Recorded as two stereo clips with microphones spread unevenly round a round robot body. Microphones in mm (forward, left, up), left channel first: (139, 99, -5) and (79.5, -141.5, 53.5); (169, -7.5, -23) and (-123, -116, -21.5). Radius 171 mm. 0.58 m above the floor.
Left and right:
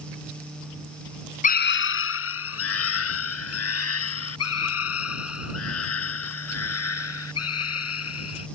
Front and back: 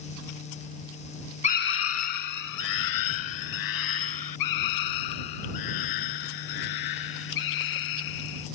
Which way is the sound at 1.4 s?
85° left.